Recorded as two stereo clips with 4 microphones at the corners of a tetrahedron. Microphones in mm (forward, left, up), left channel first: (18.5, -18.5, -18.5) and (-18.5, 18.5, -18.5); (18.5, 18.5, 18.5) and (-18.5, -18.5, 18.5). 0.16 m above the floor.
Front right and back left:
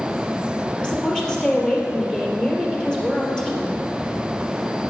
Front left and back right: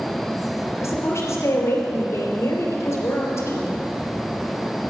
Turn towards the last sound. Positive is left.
turn(degrees=30)